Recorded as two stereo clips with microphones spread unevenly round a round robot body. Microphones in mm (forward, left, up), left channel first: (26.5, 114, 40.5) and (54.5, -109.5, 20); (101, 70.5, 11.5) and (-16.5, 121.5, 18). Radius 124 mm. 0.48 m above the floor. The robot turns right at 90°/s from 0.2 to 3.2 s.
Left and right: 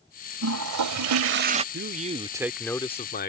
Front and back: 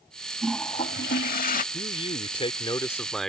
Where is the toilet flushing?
125° right; by 1.6 s 15° right.